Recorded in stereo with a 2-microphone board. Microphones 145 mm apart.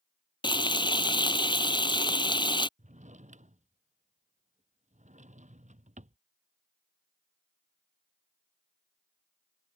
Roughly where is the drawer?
Right.